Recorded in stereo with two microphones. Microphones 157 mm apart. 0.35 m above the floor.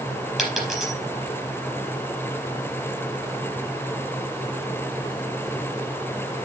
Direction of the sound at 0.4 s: Centre (ahead or behind).